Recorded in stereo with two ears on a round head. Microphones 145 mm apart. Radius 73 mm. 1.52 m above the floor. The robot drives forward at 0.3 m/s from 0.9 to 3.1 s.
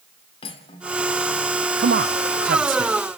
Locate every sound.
0.4 s cutlery clinking: 35° left (ahead or behind), 2.5 m
1.8 s a man speaking: 70° right (ahead or behind), 0.6 m; by 2.9 s 50° right (ahead or behind), 0.7 m